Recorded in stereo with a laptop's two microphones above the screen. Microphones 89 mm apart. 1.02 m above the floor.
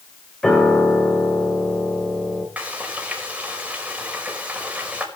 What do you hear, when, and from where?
0.4 s a piano: 5° left (ahead or behind), 3 m
2.6 s frying: 15° right (ahead or behind), 5 m